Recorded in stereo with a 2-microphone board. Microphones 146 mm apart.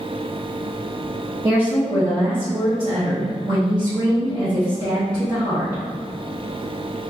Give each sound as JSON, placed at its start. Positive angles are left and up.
{"t": 1.4, "sound": "a woman speaking", "side_deg": -25, "distance_m": 1.3}